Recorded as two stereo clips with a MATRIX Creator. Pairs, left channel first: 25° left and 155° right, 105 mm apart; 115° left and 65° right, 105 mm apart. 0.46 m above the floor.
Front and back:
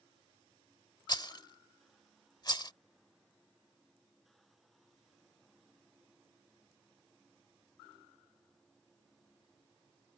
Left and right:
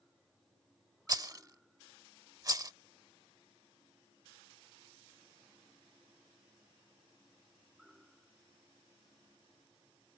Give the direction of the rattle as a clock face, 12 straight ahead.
1 o'clock.